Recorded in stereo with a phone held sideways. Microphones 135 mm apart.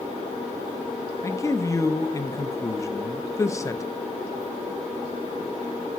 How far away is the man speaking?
About 0.8 m.